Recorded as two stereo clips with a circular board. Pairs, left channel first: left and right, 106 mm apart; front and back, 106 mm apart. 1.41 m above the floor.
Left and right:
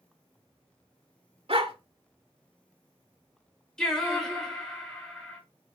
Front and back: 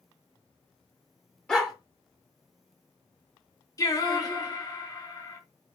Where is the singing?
10° left, 1.3 m.